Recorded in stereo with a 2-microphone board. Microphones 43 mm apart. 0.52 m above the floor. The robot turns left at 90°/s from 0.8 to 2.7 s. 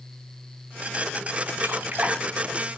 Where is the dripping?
65° right (ahead or behind), 1.8 m; by 2.2 s 15° right (ahead or behind), 1.8 m.